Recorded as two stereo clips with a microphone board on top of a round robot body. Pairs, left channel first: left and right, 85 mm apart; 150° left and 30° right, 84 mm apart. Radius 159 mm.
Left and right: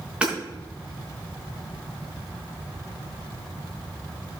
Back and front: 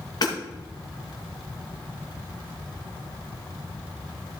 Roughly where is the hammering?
Behind.